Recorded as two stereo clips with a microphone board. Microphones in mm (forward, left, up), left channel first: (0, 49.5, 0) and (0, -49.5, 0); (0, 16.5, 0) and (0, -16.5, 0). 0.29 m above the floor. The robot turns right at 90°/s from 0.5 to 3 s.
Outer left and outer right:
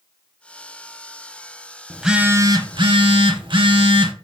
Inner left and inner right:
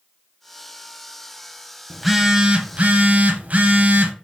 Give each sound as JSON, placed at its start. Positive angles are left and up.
{"t": 1.9, "sound": "a phone buzzing", "azimuth_deg": 170, "distance_m": 0.6}